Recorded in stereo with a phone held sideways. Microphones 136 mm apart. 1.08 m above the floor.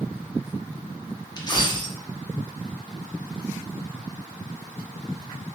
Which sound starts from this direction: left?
A dropped coin, at 1.4 s.